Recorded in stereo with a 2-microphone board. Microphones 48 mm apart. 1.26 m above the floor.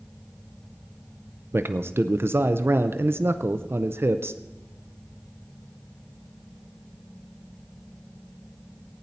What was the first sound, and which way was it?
A man speaking, 55° right (ahead or behind).